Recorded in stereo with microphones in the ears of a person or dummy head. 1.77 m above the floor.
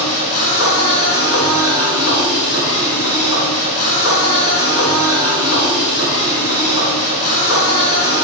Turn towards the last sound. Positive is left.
turn(degrees=45)  # may be behind; listen again after turning